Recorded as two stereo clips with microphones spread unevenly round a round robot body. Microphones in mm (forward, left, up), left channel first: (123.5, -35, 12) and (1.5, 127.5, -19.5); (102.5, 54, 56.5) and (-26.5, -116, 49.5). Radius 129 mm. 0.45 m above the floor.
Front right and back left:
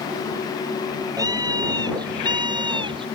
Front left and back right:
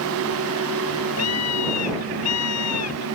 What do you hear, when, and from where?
1.2 s a scream: 55° left; by 3.1 s 60° left